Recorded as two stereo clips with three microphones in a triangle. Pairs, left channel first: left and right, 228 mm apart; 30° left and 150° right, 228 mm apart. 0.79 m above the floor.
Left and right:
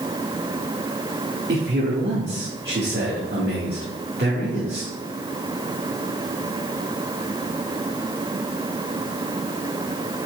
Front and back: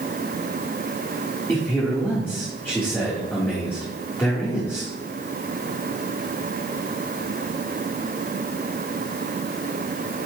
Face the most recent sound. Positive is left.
turn(degrees=-50)